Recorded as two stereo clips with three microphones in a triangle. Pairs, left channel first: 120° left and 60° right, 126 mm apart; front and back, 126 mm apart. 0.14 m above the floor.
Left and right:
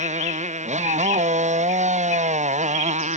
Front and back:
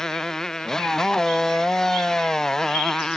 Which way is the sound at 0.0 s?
85° right.